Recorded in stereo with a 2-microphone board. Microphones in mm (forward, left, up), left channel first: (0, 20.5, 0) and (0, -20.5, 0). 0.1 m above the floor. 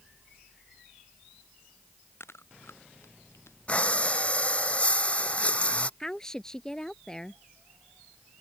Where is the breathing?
35° left (ahead or behind).